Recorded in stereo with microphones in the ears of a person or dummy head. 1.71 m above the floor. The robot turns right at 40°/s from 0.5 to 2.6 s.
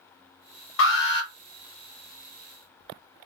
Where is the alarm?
65° left (ahead or behind), 1.0 m; by 1.3 s 50° left (ahead or behind), 1.0 m.